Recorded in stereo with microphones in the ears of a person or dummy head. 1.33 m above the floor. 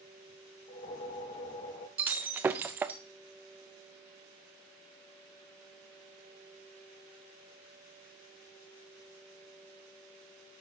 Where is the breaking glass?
10° right (ahead or behind), 0.6 m.